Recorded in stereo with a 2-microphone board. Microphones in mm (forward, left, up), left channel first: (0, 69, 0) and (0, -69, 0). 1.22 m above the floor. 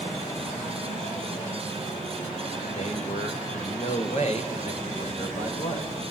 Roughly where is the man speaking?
Left.